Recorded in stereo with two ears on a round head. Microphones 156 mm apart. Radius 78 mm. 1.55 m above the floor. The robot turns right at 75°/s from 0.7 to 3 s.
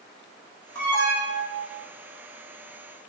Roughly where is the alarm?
Behind.